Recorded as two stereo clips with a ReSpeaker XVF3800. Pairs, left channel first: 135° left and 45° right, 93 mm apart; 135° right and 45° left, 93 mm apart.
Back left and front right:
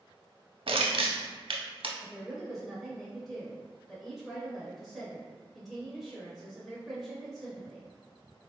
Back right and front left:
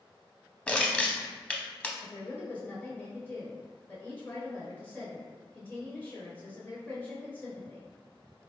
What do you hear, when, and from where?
0.7 s crushing: 60° right, 0.5 m
2.0 s a woman speaking: 135° right, 0.8 m